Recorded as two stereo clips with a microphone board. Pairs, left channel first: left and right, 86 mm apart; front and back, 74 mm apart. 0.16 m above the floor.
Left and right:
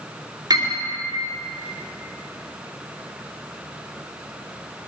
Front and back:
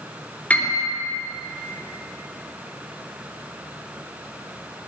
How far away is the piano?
About 3 m.